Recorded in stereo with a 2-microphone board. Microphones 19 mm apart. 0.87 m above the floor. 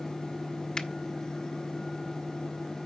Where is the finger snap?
40° left (ahead or behind), 0.9 m.